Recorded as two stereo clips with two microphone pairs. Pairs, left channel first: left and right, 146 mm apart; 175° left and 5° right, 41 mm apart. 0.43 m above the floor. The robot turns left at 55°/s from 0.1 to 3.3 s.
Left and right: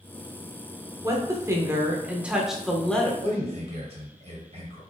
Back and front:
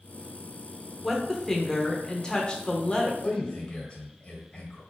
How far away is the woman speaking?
About 0.7 m.